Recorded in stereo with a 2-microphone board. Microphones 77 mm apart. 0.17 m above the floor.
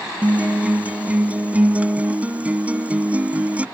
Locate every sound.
0.2 s a guitar: 20° right (ahead or behind)